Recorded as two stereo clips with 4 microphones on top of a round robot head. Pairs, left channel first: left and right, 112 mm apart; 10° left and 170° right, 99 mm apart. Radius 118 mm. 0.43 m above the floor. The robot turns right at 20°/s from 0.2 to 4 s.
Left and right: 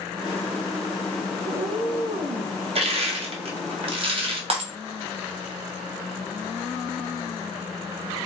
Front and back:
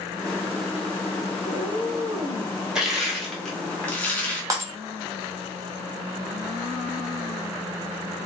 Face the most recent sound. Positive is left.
turn(degrees=-115)